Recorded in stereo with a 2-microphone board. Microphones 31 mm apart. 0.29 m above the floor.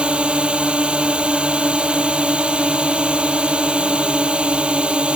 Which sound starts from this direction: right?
A drone, at 0.0 s.